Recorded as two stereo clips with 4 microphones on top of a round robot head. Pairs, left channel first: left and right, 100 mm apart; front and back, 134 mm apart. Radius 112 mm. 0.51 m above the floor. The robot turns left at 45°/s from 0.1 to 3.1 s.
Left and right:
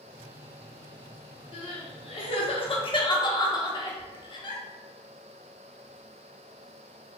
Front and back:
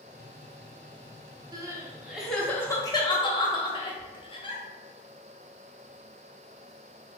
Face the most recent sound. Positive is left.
turn(degrees=50)